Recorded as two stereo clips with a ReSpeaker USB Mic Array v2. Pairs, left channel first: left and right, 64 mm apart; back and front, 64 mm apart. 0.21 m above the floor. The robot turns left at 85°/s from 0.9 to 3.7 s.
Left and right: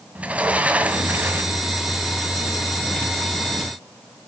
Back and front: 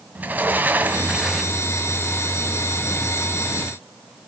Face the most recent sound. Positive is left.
turn(degrees=80)